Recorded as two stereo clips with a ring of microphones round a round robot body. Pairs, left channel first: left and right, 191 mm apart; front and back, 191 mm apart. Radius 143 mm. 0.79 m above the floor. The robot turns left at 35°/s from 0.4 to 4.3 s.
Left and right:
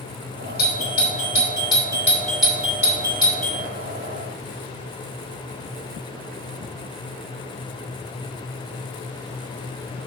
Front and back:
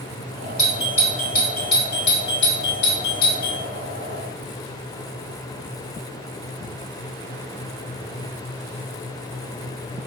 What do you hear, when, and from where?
0.6 s a doorbell: 60° left, 2.5 m; by 3.6 s 45° right, 2.5 m